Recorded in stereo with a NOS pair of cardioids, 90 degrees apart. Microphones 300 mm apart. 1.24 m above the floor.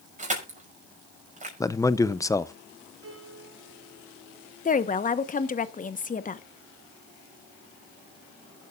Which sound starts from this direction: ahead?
A man speaking, at 1.6 s.